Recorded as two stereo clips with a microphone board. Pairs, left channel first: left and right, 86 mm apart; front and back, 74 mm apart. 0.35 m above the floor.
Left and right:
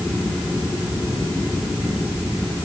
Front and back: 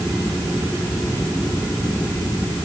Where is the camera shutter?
I don't hear a camera shutter.